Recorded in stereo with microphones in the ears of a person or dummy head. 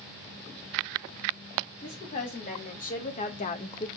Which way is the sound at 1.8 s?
35° left (ahead or behind).